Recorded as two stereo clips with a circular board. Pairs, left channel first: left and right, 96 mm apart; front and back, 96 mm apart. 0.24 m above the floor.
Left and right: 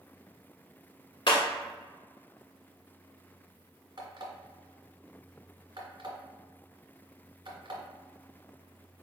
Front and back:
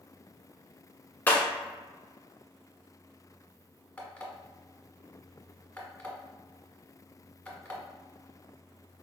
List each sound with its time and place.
1.3 s breaking glass: 70° left, 0.9 m
4.0 s an alarm clock: 75° right, 1.2 m